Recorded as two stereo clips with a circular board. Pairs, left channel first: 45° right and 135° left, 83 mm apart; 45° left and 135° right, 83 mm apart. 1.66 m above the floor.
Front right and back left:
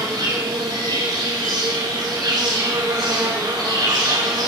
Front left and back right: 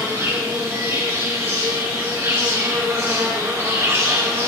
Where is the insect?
170° left, 3 m.